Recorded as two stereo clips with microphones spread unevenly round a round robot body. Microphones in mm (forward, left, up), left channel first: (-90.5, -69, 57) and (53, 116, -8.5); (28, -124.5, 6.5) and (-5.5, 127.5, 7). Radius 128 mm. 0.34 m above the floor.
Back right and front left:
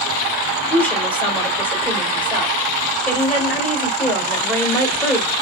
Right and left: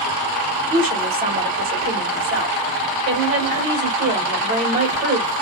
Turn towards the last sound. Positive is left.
turn(degrees=130)